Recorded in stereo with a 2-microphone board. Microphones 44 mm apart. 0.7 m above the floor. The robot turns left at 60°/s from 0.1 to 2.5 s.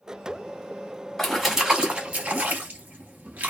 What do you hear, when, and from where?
1.2 s a splash: 5° left (ahead or behind), 0.7 m; by 3.5 s 45° right (ahead or behind), 0.7 m